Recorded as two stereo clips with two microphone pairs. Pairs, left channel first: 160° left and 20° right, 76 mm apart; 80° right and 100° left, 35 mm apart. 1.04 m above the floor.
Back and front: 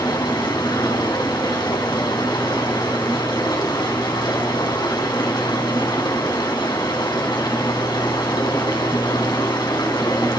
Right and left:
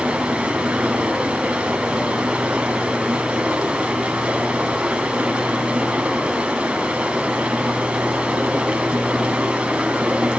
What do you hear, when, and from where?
0.0 s running water: 155° left, 4.5 m